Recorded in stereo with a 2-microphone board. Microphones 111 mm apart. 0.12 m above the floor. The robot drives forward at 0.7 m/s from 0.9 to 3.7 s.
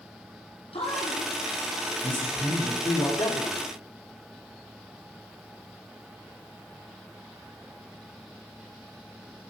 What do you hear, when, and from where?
0.7 s a man speaking: 60° left (ahead or behind), 4.5 m; by 3.1 s 50° left (ahead or behind), 5.5 m
3.2 s a man speaking: 45° left (ahead or behind), 4.5 m; by 3.7 s 50° left (ahead or behind), 4 m